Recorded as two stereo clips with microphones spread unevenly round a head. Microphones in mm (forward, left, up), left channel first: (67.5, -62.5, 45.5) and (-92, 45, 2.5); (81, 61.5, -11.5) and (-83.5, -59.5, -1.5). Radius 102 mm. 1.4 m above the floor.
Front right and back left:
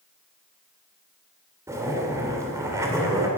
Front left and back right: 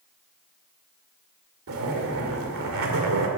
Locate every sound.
1.7 s a zipper: 130° right, 2.5 m